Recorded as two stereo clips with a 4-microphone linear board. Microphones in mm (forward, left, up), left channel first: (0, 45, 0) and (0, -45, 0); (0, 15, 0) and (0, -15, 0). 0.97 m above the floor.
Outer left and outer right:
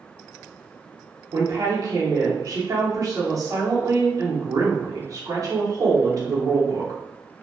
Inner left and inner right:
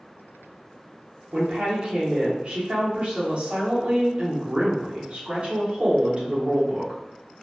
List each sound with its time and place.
1.3 s a woman speaking: 45° right (ahead or behind), 0.9 m